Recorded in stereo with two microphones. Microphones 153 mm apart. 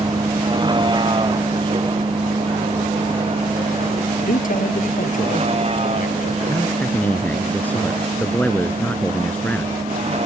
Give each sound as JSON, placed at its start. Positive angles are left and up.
{"t": 0.0, "sound": "a vehicle", "side_deg": -30}
{"t": 4.2, "sound": "a man speaking", "side_deg": 65}
{"t": 6.5, "sound": "a man speaking", "side_deg": 10}